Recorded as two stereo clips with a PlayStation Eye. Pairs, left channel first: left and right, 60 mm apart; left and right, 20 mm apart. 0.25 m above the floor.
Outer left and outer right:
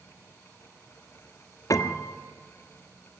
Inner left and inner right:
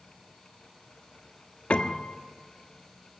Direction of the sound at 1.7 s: 65° left (ahead or behind).